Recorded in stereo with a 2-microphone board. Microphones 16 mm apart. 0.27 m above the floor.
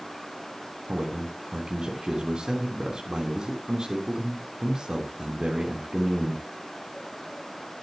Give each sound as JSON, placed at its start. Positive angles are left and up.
{"t": 0.9, "sound": "a man speaking", "side_deg": -60, "distance_m": 3.0}